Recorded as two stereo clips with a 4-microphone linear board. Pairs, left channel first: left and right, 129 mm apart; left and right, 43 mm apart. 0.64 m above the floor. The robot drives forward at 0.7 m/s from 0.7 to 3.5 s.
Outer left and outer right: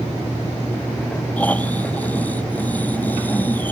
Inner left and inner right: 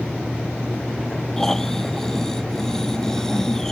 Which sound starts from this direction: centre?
Snoring, at 1.4 s.